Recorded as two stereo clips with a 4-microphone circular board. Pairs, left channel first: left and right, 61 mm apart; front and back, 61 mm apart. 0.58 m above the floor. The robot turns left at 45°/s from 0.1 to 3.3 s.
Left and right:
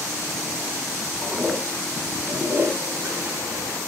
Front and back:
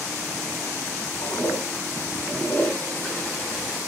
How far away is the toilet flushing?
About 4.5 m.